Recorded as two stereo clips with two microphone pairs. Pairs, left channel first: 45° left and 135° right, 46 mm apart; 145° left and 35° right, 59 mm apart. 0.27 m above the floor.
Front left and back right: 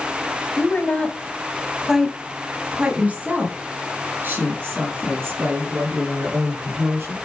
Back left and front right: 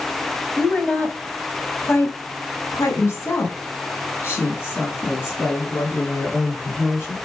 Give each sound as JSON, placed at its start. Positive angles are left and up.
{"t": 0.6, "sound": "a woman speaking", "azimuth_deg": 70, "distance_m": 1.5}